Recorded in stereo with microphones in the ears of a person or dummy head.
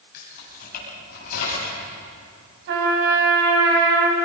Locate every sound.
0.1 s keys jangling: 55° left (ahead or behind), 9 m; by 1.8 s 50° left (ahead or behind), 8.5 m
2.7 s a trumpet: 70° right (ahead or behind), 4.5 m